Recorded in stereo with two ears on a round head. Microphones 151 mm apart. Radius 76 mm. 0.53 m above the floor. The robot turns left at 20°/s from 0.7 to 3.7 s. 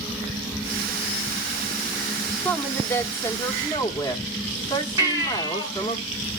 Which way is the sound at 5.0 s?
20° right (ahead or behind).